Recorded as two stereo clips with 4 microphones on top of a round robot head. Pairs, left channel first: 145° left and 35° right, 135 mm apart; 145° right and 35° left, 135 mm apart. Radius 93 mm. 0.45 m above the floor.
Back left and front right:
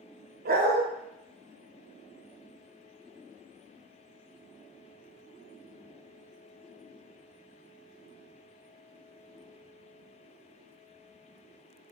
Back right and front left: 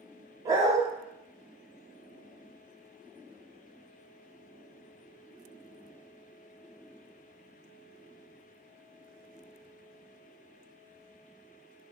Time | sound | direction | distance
0.5 | a dog barking | 30° right | 0.6 m